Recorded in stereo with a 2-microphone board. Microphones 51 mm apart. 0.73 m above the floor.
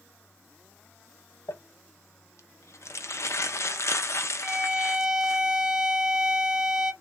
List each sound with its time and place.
1.5 s crumpling: 65° left (ahead or behind), 0.6 m
4.4 s a violin: 10° right (ahead or behind), 0.7 m